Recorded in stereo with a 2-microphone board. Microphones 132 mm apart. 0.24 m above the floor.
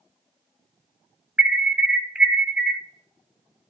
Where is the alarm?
10° right (ahead or behind), 1.1 m.